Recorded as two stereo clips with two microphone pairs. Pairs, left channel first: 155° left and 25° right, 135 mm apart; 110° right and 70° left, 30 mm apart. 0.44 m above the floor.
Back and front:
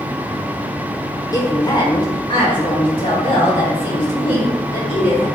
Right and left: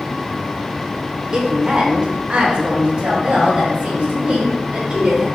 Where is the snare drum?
I don't hear a snare drum.